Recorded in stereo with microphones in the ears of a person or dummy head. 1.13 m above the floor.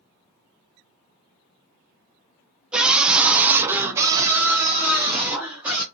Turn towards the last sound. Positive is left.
turn(degrees=-10)  # may be behind; listen again after turning